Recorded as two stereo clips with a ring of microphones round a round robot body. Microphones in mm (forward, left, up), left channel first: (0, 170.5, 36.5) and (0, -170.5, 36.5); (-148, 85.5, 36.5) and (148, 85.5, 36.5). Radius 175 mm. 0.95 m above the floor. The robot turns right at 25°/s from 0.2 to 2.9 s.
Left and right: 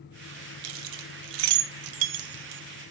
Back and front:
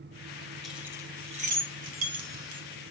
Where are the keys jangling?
90° right, 0.8 m; by 2.6 s 40° right, 0.8 m.